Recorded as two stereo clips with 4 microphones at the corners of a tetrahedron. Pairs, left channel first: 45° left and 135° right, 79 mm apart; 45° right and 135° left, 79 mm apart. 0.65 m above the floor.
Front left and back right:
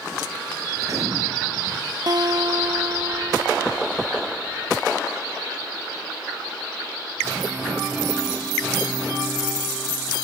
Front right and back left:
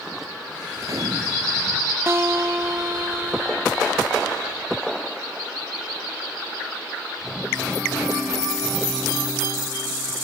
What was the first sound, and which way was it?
A gunshot, 175° left.